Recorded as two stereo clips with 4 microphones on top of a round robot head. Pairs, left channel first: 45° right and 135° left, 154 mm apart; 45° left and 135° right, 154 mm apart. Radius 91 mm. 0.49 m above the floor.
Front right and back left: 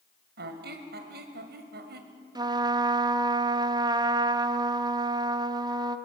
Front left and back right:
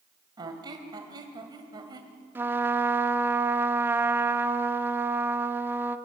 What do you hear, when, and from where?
0.4 s a squeak: 155° left, 1.6 m
2.4 s a trumpet: 160° left, 0.8 m